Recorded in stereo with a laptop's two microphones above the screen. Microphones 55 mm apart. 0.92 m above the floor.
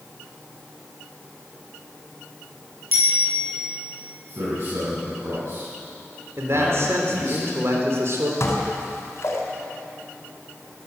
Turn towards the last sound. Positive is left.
turn(degrees=55)  # may be behind; listen again after turning